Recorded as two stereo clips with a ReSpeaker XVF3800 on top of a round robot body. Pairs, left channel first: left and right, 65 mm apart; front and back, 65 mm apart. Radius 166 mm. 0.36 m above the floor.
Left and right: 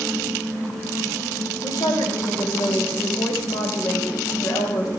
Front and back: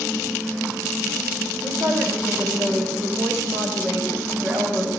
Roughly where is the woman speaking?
Behind left.